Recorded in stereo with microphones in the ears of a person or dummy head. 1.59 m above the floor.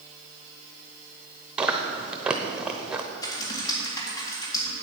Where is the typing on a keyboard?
25° left (ahead or behind), 2 m.